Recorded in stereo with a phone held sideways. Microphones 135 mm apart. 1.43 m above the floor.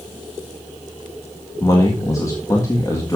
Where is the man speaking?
25° left (ahead or behind), 1.7 m.